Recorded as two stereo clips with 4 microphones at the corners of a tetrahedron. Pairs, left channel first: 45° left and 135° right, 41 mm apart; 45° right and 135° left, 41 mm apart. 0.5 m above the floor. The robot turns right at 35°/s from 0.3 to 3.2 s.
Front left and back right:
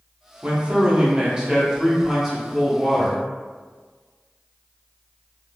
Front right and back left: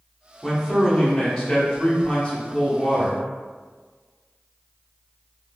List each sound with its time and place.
0.4 s a man speaking: 120° right, 0.8 m; by 3.2 s 25° right, 0.8 m